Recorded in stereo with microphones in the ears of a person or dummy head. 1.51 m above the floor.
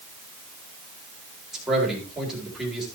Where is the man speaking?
5° right (ahead or behind), 3.5 m.